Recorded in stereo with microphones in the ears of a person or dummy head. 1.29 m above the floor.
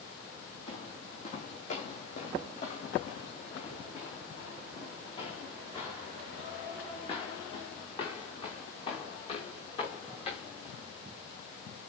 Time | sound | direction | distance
0.7 | footsteps | 35° left (ahead or behind) | 3.5 m